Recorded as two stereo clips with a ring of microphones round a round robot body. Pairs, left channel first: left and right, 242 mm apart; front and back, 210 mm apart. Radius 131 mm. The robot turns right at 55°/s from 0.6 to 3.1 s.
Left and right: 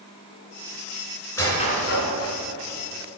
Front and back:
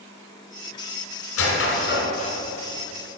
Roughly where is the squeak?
Ahead.